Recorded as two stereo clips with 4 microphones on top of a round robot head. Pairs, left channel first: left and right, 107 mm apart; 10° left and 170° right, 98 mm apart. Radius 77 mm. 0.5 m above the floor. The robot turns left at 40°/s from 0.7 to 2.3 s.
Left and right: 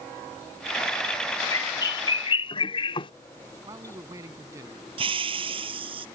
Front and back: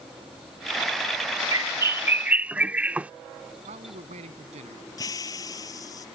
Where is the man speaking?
155° right.